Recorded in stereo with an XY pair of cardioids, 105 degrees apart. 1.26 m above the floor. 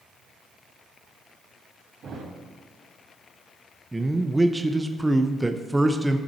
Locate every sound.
2.0 s a thud: 55° right, 2.5 m
3.9 s a man speaking: 5° right, 0.6 m